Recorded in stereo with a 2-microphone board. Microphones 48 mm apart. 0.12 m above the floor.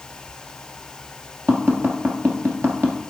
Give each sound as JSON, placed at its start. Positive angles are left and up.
{"t": 1.5, "sound": "tapping", "side_deg": -55, "distance_m": 1.4}